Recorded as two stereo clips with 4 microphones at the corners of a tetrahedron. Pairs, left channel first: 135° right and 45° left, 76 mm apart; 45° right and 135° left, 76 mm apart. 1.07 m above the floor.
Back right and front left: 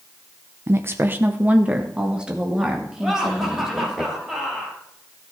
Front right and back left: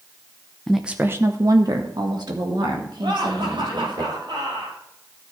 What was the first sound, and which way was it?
A woman speaking, 30° left.